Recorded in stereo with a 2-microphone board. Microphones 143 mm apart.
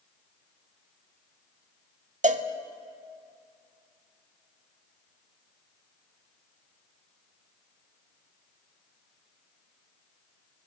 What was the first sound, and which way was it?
A cowbell, 60° right (ahead or behind).